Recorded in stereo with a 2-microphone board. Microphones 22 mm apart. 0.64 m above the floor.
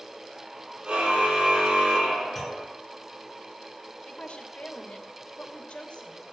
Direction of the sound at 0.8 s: 55° right (ahead or behind).